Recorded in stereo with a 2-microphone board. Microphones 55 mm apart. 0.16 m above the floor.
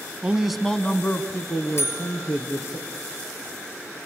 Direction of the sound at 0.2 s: 20° right (ahead or behind).